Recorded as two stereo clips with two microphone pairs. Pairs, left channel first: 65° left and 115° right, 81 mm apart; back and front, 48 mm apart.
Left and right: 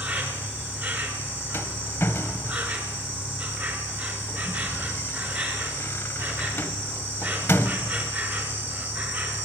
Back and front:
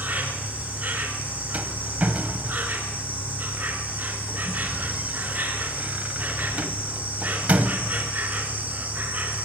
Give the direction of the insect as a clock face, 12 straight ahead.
2 o'clock.